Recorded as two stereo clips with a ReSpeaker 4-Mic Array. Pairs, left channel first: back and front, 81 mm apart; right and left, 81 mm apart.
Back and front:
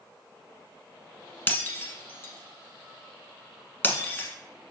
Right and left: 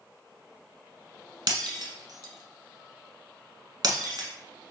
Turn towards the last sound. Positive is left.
turn(degrees=115)